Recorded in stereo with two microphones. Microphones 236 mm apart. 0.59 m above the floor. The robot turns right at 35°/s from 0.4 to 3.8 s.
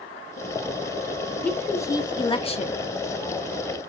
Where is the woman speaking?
5° left, 0.7 m; by 2.8 s 55° left, 0.7 m.